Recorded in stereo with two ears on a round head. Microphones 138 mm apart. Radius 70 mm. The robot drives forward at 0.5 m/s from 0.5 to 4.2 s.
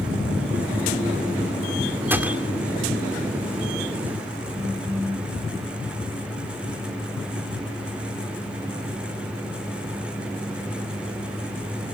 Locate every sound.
2.1 s a gunshot: 15° right (ahead or behind), 1.9 m
4.5 s a phone buzzing: 10° right (ahead or behind), 3.5 m